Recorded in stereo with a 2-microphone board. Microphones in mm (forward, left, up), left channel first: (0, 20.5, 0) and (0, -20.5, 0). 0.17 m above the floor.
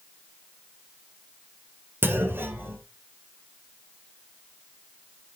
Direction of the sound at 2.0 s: 60° right (ahead or behind).